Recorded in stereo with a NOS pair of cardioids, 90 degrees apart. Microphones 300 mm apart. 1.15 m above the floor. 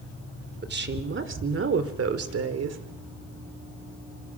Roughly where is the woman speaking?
Ahead right.